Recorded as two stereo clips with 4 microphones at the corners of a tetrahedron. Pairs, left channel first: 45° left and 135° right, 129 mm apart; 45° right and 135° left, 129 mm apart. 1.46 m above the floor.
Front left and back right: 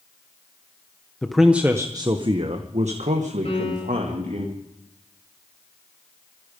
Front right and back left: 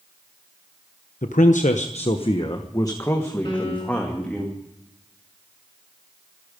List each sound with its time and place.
1.2 s a man speaking: 40° right, 1.1 m; by 4.5 s 130° right, 2.5 m
3.5 s a piano: 5° left, 9.5 m